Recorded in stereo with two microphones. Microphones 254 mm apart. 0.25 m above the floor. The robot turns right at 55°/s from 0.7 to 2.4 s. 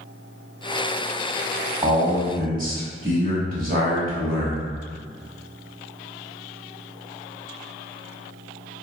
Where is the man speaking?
150° right, 1.2 m; by 4.7 s 120° right, 1.2 m.